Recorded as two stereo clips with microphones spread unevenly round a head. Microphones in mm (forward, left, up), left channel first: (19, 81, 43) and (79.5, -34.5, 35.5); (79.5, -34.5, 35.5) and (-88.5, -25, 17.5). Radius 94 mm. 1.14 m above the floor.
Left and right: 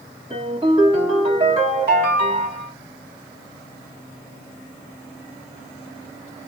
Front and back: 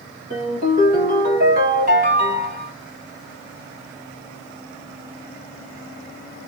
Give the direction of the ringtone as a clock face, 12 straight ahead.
5 o'clock.